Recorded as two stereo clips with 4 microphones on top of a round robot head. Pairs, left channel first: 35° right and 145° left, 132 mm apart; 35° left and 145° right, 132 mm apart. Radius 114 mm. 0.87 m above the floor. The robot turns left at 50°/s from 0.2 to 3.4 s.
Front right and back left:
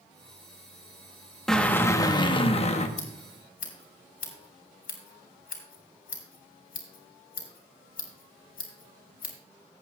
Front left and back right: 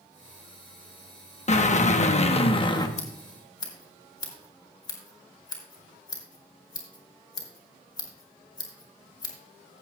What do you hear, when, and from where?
1.5 s a drill: 50° left, 1.0 m; by 2.9 s 20° right, 1.0 m
3.0 s scissors: straight ahead, 2.5 m; by 9.3 s 20° right, 2.5 m